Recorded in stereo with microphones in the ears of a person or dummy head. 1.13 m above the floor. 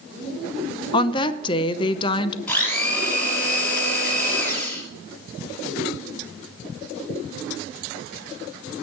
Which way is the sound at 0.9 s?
25° left (ahead or behind).